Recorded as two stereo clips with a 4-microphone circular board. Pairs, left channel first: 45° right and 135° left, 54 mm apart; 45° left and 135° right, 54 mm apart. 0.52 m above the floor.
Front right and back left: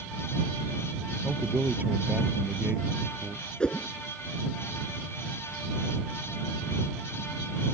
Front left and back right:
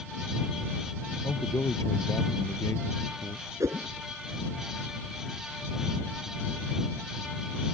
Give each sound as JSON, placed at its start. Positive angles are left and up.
{"t": 1.2, "sound": "a man speaking", "azimuth_deg": 70}
{"t": 3.6, "sound": "a whoosh", "azimuth_deg": -115}